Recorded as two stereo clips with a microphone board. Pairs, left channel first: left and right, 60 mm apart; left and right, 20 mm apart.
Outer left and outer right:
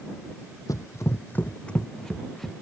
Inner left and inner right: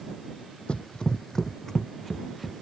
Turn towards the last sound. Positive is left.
turn(degrees=5)  # may be behind; listen again after turning